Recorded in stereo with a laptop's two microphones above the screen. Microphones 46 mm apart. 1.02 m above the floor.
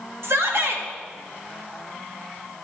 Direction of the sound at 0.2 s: 65° right (ahead or behind).